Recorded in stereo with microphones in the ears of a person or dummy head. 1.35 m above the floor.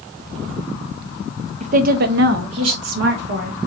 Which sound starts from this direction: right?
A woman speaking, at 1.6 s.